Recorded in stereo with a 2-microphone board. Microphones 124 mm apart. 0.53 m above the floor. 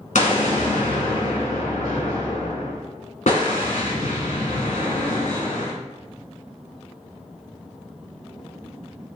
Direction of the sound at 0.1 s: 85° left.